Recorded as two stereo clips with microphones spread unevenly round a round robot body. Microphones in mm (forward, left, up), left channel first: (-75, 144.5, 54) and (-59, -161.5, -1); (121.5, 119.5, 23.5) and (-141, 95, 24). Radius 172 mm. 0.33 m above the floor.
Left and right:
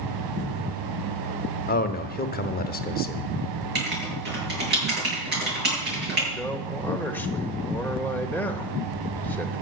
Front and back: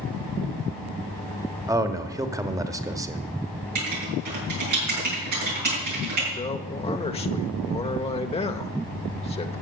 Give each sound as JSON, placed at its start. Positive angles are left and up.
{"t": 1.7, "sound": "a man speaking", "azimuth_deg": 130, "distance_m": 1.0}
{"t": 3.8, "sound": "writing", "azimuth_deg": -140, "distance_m": 7.5}
{"t": 6.3, "sound": "a man speaking", "azimuth_deg": -10, "distance_m": 0.9}